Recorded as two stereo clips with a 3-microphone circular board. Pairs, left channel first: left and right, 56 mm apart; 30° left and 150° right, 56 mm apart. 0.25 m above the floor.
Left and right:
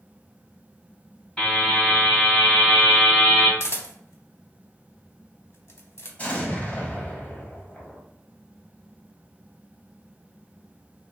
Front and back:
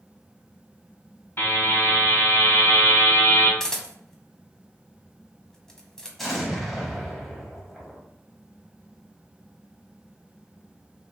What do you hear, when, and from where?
1.4 s a buzzer: 30° left, 1.8 m
3.6 s a camera shutter: 105° left, 0.6 m
6.2 s an explosion: 120° left, 0.8 m